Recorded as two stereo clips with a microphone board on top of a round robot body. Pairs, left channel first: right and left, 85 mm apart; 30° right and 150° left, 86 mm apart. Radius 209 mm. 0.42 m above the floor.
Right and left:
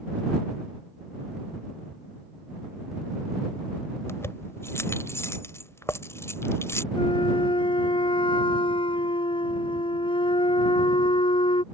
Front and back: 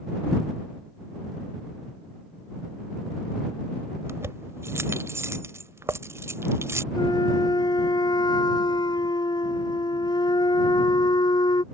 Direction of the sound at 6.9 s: 70° right.